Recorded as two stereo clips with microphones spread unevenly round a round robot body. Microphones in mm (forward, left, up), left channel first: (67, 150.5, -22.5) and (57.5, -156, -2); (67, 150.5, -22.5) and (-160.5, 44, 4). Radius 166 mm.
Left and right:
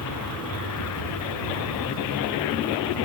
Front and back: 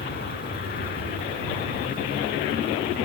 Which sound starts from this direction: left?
An aircraft, at 0.0 s.